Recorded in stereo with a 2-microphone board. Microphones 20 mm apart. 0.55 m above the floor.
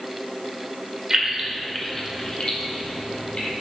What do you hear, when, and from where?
1.1 s keys jangling: 25° right (ahead or behind), 1.4 m; by 3.5 s 75° left (ahead or behind), 2.5 m